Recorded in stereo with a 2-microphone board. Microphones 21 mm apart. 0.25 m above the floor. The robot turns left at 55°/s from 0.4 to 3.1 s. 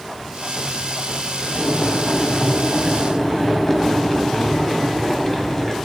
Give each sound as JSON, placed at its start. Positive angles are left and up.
{"t": 1.6, "sound": "boiling", "azimuth_deg": 115, "distance_m": 1.7}